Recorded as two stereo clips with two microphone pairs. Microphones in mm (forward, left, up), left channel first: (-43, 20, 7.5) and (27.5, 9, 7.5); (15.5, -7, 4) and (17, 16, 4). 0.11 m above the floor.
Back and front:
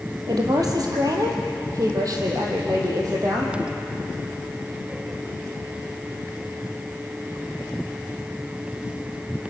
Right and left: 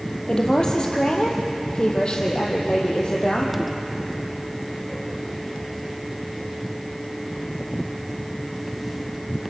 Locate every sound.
0.3 s a woman speaking: 35° right, 4 m; by 3.6 s 50° right, 5 m